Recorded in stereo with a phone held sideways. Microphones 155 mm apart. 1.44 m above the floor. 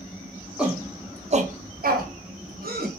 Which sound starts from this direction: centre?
A shout, at 0.6 s.